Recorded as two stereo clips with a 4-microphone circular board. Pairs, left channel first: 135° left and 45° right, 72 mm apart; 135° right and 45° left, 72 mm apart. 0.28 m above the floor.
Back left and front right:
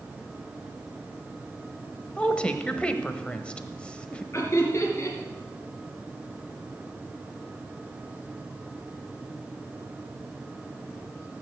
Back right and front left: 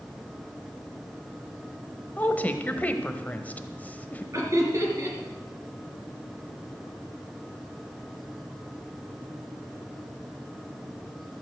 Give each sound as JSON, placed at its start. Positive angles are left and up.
{"t": 2.2, "sound": "a woman speaking", "azimuth_deg": -170, "distance_m": 1.0}
{"t": 4.3, "sound": "laughter", "azimuth_deg": 85, "distance_m": 3.5}